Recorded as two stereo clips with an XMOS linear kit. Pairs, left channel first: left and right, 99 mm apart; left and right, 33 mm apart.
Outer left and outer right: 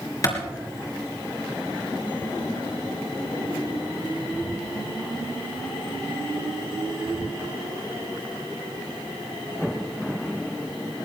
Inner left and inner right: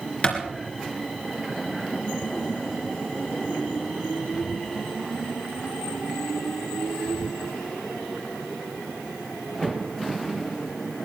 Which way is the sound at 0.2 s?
35° left (ahead or behind).